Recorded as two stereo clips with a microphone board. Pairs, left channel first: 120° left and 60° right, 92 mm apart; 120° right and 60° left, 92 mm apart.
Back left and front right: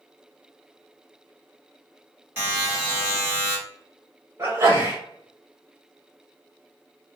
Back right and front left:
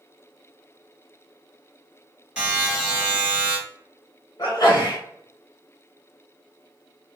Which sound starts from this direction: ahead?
A buzzer, at 2.4 s.